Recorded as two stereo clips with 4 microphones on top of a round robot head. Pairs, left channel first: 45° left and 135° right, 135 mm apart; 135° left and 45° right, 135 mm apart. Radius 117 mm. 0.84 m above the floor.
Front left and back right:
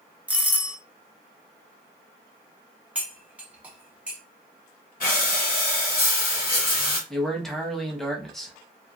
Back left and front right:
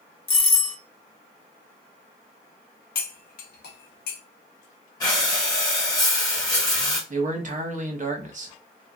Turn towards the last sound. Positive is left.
turn(degrees=-45)